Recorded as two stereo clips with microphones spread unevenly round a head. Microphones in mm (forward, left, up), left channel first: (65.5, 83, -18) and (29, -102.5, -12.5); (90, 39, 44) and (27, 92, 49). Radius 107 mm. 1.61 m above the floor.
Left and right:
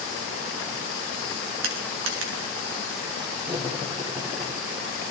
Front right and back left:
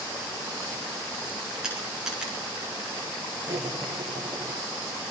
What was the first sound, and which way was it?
Crushing, 135° right.